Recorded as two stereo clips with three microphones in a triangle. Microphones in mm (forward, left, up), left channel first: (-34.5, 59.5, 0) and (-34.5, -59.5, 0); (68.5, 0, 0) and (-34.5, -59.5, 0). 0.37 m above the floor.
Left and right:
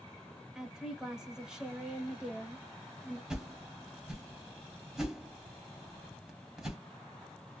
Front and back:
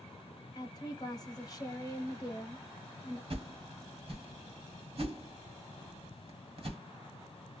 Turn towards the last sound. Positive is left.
turn(degrees=-175)